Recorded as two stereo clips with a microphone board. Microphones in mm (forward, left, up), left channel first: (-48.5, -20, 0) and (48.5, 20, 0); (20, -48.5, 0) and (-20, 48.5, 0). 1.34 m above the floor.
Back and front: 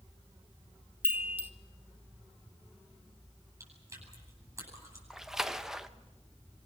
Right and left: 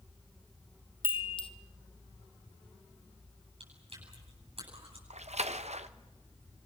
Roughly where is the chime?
Ahead right.